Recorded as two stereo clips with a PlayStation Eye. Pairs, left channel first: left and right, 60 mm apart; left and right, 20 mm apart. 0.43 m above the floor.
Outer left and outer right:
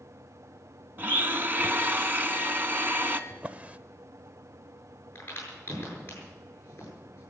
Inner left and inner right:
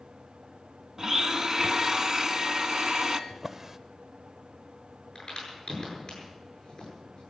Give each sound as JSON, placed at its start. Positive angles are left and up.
{"t": 1.0, "sound": "a blender", "side_deg": -35, "distance_m": 0.9}
{"t": 3.3, "sound": "a drawer", "side_deg": -25, "distance_m": 0.7}
{"t": 5.2, "sound": "a crack", "side_deg": 35, "distance_m": 8.0}